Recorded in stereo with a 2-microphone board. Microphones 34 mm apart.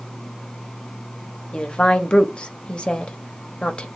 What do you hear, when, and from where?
1.5 s a woman speaking: 35° left (ahead or behind), 0.8 m